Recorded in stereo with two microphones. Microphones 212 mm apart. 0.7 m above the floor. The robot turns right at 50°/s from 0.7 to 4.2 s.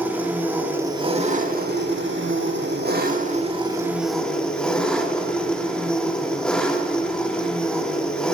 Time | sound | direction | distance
0.0 | an engine running | 170° right | 1.4 m